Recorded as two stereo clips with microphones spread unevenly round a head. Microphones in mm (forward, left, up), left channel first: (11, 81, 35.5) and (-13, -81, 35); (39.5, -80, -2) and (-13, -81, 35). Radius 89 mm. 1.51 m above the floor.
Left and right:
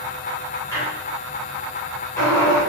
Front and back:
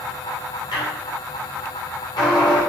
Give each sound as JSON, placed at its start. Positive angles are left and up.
{"t": 0.7, "sound": "a squeak", "azimuth_deg": 10, "distance_m": 3.5}